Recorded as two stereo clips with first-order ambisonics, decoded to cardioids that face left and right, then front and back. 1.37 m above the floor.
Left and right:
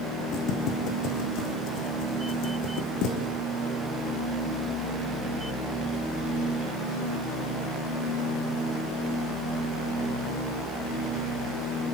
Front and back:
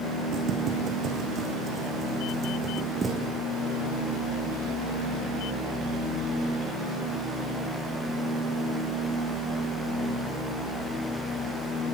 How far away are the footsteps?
About 4 m.